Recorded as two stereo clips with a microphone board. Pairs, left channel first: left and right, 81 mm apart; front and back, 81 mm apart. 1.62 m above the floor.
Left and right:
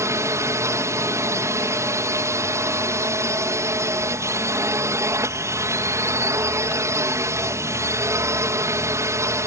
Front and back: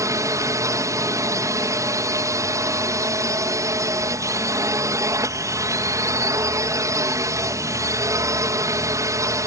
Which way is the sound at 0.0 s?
140° right.